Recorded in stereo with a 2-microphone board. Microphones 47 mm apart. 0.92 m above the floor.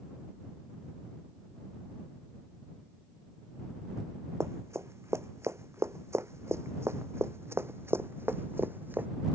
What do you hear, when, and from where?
4.4 s running footsteps: 75° right (ahead or behind); by 9.1 s 45° right (ahead or behind)